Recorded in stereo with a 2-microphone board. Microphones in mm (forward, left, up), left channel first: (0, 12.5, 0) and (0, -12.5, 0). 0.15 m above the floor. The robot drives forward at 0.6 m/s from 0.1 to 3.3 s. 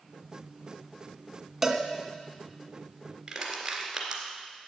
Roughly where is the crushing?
Centre.